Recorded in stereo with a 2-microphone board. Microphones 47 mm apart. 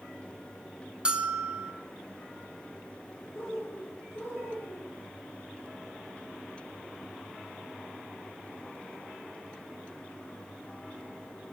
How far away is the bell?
About 0.5 m.